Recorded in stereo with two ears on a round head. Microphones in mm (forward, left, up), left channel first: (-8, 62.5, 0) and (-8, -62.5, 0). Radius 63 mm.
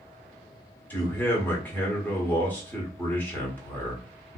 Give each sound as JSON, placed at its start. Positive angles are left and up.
{"t": 0.9, "sound": "a man speaking", "side_deg": 15, "distance_m": 1.3}